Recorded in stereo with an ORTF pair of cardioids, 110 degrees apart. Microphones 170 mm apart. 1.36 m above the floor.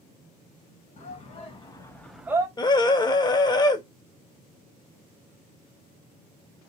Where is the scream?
25° left, 1.0 m.